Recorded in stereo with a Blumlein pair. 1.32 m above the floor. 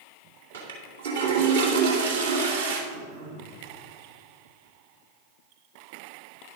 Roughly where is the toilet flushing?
Ahead right.